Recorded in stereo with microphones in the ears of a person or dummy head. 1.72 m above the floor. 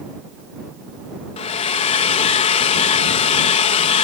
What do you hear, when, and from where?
1.4 s a hair dryer: 25° left (ahead or behind)